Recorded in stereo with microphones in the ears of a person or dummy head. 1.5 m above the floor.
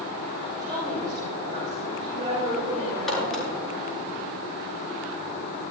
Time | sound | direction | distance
0.6 | a woman speaking | 25° right (ahead or behind) | 6.5 m
3.1 | a crack | centre (ahead or behind) | 6.5 m